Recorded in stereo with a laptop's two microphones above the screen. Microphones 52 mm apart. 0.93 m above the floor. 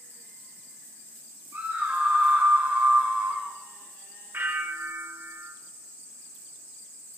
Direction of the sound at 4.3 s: 45° right (ahead or behind).